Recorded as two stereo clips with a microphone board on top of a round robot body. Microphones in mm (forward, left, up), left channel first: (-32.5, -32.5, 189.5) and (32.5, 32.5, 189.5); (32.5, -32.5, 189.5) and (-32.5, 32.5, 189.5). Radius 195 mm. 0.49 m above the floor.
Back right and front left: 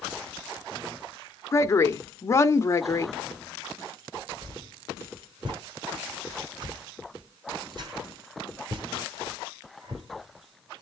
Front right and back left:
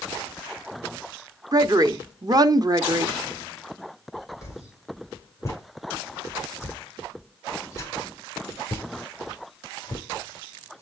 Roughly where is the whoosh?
Ahead.